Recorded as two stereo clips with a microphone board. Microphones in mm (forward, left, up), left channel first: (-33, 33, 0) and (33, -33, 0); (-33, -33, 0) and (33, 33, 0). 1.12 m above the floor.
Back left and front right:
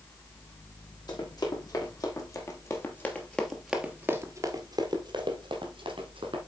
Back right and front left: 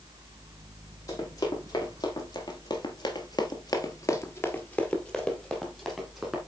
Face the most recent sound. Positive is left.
turn(degrees=-40)